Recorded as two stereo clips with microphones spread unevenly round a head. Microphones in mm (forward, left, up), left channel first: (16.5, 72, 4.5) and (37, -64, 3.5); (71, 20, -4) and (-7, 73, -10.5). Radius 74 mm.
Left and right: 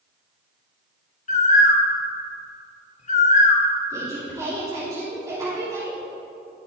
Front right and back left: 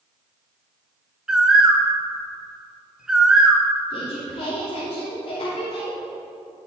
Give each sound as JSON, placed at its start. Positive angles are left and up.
{"t": 1.3, "sound": "a bird", "azimuth_deg": 65, "distance_m": 1.4}
{"t": 3.9, "sound": "a woman speaking", "azimuth_deg": -15, "distance_m": 3.0}